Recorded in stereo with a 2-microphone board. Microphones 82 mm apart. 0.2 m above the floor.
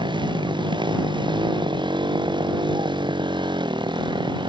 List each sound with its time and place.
0.0 s a motorcycle: 75° right (ahead or behind)